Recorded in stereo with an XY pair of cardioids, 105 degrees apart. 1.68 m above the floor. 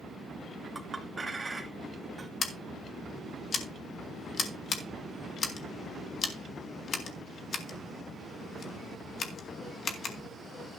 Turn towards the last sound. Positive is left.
turn(degrees=45)